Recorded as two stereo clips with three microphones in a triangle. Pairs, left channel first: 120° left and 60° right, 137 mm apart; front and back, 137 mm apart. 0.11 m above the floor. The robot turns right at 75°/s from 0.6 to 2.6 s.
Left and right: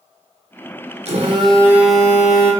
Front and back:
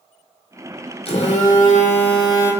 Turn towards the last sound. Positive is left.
turn(degrees=80)